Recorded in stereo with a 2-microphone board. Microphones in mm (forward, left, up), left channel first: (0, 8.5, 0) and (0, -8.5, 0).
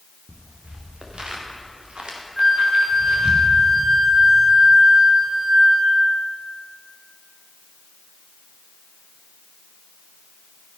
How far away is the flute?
About 2.5 m.